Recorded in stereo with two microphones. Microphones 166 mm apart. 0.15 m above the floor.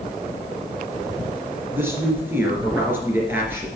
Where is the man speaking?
15° right (ahead or behind), 3 m.